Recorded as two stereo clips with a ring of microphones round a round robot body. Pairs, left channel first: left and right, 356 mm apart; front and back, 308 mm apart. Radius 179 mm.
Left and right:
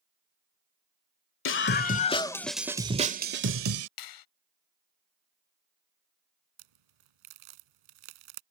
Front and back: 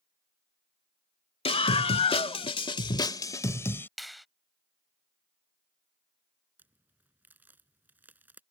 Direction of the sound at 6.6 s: 95° right.